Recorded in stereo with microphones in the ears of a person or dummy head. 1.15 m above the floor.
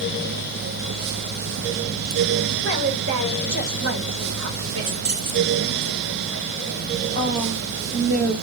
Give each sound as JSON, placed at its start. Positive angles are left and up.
{"t": 2.6, "sound": "a woman speaking", "side_deg": -60, "distance_m": 2.5}
{"t": 4.8, "sound": "keys jangling", "side_deg": -50, "distance_m": 2.5}
{"t": 7.1, "sound": "a woman speaking", "side_deg": -60, "distance_m": 2.0}